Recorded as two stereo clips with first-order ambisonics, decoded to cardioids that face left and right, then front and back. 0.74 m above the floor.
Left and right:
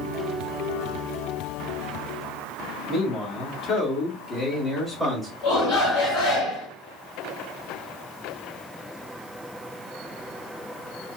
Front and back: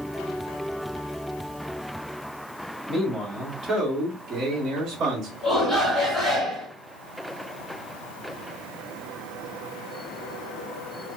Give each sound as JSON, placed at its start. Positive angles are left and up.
{"t": 2.9, "sound": "a man speaking", "azimuth_deg": 100, "distance_m": 1.6}
{"t": 5.4, "sound": "a shout", "azimuth_deg": 90, "distance_m": 2.0}